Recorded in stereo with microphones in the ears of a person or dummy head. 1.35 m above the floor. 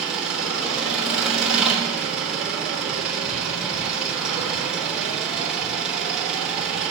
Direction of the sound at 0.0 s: Centre (ahead or behind).